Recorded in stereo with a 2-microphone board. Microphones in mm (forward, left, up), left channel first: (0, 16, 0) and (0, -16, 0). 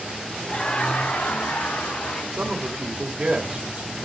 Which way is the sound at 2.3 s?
30° right (ahead or behind).